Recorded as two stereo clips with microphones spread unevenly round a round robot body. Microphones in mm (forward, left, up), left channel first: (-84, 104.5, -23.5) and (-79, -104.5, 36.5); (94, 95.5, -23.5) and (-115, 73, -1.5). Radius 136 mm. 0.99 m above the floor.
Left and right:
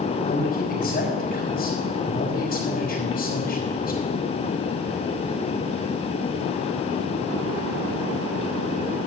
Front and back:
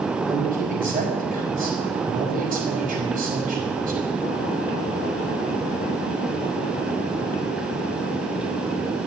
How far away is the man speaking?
About 5 m.